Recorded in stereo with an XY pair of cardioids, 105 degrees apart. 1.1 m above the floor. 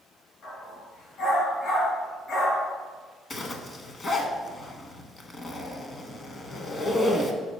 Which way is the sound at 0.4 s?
60° left.